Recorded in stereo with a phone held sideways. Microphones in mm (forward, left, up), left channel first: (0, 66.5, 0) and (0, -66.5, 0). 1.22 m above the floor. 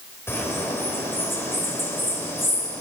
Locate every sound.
0.3 s a bird: 20° left (ahead or behind), 4.5 m